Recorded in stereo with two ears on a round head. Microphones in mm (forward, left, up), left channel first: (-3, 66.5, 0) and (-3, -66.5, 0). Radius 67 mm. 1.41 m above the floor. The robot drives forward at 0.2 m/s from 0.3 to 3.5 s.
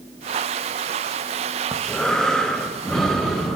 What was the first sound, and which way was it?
Breathing, 5° left (ahead or behind).